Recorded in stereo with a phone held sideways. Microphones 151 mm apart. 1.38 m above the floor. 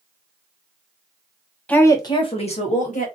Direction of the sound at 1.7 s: 10° left (ahead or behind).